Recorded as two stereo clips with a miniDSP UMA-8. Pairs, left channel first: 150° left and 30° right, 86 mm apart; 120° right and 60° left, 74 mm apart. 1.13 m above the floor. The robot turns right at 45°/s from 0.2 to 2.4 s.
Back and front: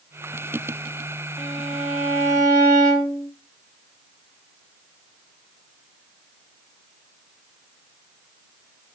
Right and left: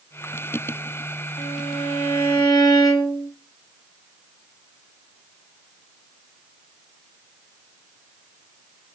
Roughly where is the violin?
Behind right.